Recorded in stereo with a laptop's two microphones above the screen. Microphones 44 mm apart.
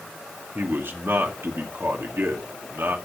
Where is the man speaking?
60° right (ahead or behind), 2.5 m.